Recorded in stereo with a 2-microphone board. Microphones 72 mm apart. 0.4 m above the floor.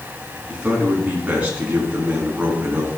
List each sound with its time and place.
0.5 s a man speaking: 15° right (ahead or behind), 4 m